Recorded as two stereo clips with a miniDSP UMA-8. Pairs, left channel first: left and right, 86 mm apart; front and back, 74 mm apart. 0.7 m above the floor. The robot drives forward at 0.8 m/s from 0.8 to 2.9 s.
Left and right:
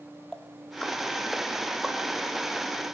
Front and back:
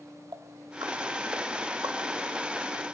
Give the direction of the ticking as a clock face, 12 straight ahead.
6 o'clock.